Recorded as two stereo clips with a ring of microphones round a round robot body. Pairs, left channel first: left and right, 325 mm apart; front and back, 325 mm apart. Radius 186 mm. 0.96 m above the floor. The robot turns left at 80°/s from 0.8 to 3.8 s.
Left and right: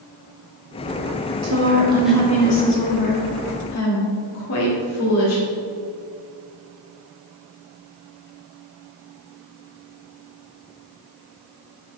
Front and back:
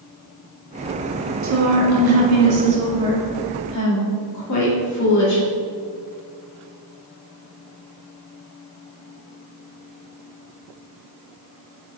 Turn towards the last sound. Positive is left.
turn(degrees=40)